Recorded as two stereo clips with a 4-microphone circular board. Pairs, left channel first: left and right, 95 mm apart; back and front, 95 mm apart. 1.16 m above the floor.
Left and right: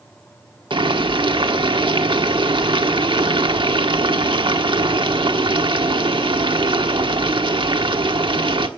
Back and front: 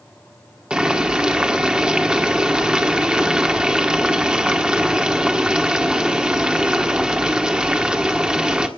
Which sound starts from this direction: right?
Boiling, at 0.7 s.